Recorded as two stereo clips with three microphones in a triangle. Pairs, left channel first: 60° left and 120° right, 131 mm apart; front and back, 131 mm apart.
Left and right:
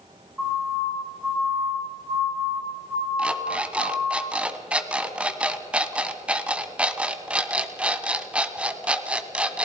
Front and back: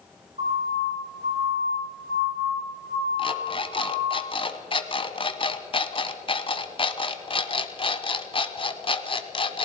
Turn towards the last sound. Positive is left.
turn(degrees=-40)